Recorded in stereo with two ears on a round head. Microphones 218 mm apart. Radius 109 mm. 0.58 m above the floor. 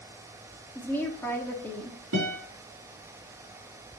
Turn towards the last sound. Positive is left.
turn(degrees=-65)  # may be behind; listen again after turning